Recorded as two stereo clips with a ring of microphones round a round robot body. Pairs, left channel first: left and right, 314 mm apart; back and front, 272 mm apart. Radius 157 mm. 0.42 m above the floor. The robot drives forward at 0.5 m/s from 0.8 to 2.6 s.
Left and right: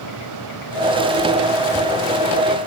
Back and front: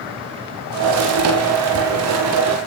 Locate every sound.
Only background noise.